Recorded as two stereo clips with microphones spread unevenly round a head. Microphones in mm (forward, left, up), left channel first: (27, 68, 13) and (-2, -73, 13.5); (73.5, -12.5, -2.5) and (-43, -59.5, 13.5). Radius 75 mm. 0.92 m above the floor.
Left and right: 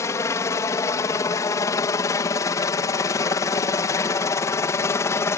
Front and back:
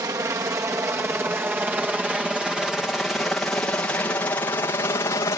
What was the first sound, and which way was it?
A helicopter, 140° left.